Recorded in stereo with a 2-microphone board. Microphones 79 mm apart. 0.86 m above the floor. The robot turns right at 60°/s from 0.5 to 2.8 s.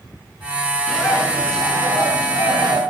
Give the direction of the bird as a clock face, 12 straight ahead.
6 o'clock.